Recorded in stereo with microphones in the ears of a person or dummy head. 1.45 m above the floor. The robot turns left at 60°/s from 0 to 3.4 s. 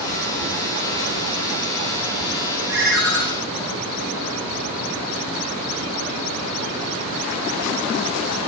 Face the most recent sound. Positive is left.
turn(degrees=150)